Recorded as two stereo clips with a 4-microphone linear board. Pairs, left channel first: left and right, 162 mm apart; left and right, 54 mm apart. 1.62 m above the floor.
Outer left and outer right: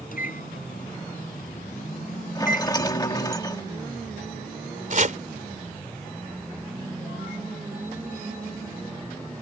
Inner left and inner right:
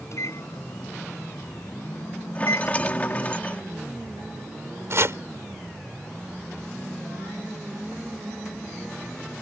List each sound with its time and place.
0.1 s a microwave: 60° left (ahead or behind)
2.4 s a rattle: 25° left (ahead or behind)
4.9 s chopping: 55° right (ahead or behind)